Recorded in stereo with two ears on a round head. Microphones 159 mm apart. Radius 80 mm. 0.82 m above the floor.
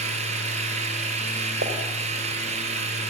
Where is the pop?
60° right (ahead or behind), 4 m.